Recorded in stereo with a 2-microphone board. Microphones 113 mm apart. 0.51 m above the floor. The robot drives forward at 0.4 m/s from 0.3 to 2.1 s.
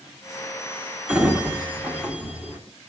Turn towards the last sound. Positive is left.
turn(degrees=-10)  # may be behind; listen again after turning